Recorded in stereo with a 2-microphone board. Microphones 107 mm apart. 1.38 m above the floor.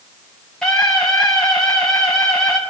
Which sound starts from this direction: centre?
A scream, at 0.6 s.